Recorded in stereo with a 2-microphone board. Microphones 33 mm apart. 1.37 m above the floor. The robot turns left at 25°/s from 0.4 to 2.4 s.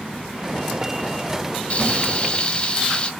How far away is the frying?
About 1.6 m.